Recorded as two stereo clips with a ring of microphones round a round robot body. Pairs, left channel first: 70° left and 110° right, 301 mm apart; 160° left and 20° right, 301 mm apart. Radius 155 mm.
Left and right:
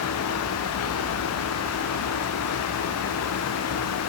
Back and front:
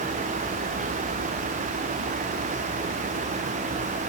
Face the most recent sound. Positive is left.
No sound to turn to.